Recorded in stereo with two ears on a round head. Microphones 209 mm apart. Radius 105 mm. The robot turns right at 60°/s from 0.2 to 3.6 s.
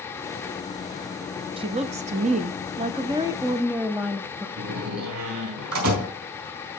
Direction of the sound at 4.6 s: 85° right.